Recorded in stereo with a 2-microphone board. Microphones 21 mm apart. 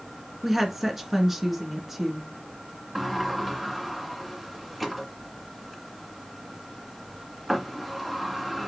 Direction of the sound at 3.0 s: 10° right (ahead or behind).